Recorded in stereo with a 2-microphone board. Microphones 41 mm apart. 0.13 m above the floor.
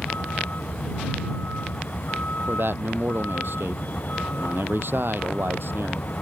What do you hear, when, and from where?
0.0 s a vehicle: 45° left (ahead or behind)
2.5 s a man speaking: 60° right (ahead or behind)